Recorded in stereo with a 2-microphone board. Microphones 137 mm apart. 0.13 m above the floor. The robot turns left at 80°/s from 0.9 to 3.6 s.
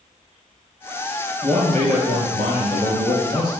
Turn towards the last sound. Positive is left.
turn(degrees=130)